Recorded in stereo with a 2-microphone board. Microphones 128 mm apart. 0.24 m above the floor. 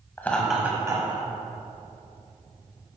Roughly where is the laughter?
Centre.